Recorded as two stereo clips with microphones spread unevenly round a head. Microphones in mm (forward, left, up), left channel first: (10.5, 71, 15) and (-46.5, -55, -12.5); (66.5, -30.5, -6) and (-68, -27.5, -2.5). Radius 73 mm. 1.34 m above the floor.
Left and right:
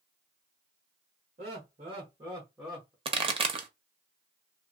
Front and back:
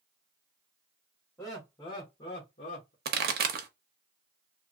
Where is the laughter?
75° right, 1.5 m; by 3.0 s 20° right, 1.1 m.